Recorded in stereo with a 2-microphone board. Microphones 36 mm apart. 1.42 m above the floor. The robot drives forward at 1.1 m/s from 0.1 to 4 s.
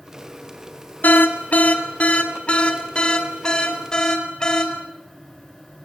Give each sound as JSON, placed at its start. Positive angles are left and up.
{"t": 1.0, "sound": "an alarm", "side_deg": 60, "distance_m": 2.0}